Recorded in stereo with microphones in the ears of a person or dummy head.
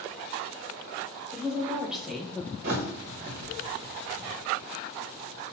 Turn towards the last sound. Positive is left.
turn(degrees=-40)  # may be behind; listen again after turning